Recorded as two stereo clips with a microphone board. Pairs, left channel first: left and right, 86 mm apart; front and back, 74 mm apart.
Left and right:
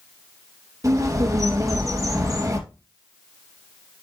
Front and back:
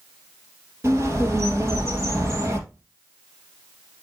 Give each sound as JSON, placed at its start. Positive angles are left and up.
{"t": 0.8, "sound": "a bird", "azimuth_deg": -135, "distance_m": 3.0}